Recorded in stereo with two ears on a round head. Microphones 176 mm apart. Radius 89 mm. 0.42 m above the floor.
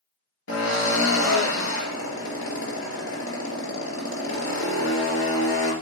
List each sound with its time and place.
0.5 s a drill: 70° left (ahead or behind), 3 m